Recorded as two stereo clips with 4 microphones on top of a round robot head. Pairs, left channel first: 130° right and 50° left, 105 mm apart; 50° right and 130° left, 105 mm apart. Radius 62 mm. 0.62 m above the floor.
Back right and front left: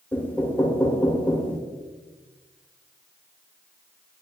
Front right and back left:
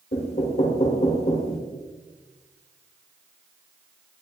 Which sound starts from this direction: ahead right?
Knocking, at 0.1 s.